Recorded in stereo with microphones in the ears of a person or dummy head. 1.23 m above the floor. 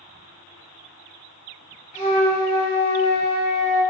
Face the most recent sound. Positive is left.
turn(degrees=25)  # may be behind; listen again after turning